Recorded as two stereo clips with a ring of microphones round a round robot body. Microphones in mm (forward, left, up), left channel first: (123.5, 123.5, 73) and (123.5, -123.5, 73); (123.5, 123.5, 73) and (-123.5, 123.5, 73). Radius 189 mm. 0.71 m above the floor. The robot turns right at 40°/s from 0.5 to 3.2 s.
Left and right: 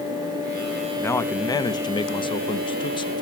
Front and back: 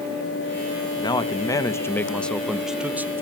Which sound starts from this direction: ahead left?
A man speaking, at 1.0 s.